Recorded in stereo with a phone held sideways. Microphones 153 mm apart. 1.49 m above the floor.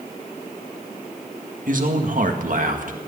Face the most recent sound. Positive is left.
turn(degrees=-65)  # may be behind; listen again after turning